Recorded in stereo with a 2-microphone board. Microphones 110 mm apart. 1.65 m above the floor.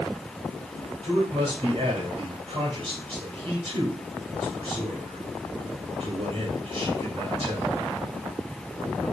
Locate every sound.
1.0 s a man speaking: 55° right (ahead or behind), 2.5 m